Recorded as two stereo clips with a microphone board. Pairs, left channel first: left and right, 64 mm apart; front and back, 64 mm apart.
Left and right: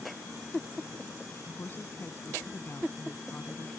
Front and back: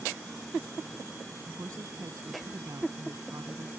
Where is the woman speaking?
145° left.